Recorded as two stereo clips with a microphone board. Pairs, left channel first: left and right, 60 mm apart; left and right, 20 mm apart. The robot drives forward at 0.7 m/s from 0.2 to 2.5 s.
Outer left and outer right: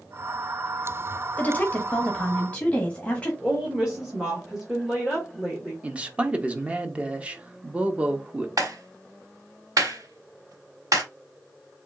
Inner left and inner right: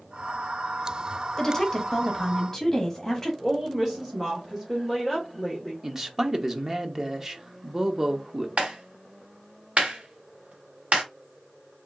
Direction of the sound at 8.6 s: 75° right (ahead or behind).